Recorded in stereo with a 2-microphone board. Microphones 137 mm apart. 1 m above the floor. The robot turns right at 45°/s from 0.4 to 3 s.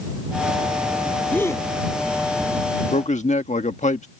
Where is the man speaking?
65° left (ahead or behind); by 4.1 s 60° left (ahead or behind).